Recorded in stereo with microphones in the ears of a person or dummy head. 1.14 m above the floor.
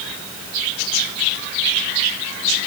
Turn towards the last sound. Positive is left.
No sound to turn to.